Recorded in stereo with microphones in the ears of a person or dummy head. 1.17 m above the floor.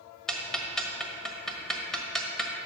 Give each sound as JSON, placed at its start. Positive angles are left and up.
{"t": 0.3, "sound": "ticking", "side_deg": 5, "distance_m": 1.4}